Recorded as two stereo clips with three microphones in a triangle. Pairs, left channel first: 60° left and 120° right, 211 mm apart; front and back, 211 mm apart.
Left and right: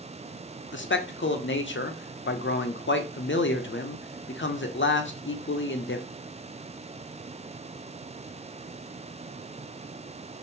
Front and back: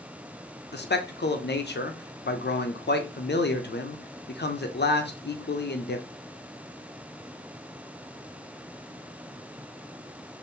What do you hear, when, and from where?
0.7 s a man speaking: 35° left, 0.5 m